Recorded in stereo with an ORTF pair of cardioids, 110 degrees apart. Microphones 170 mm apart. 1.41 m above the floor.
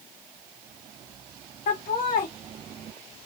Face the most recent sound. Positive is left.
turn(degrees=55)